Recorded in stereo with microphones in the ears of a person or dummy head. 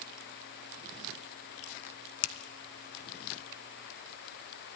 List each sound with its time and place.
2.2 s a finger snap: 75° left (ahead or behind), 0.9 m